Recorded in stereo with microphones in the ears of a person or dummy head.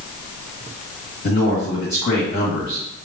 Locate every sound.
1.2 s a man speaking: 60° left (ahead or behind), 1.9 m